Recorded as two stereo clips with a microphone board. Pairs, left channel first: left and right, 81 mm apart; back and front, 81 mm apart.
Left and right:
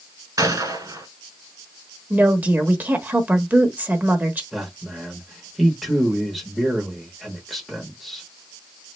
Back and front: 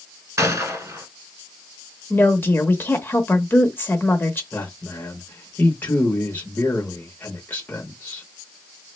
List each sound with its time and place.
0.4 s a gunshot: 45° right, 1.0 m
2.1 s a woman speaking: 140° right, 0.9 m
4.5 s a man speaking: straight behind, 0.8 m